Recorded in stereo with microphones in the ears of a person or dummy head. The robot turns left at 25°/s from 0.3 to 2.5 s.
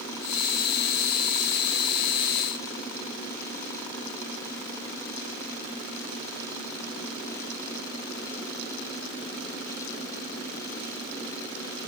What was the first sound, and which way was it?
Only background noise.